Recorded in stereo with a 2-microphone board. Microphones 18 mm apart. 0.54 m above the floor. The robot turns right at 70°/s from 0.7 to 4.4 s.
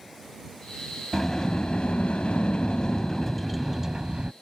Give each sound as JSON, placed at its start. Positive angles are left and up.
{"t": 1.1, "sound": "a sliding door", "azimuth_deg": 15}